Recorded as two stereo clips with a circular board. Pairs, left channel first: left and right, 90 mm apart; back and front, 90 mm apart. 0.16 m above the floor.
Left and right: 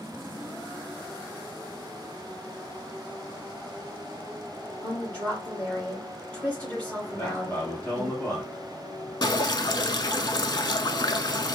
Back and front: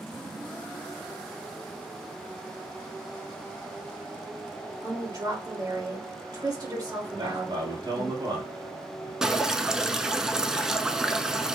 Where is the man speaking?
15° left, 3 m.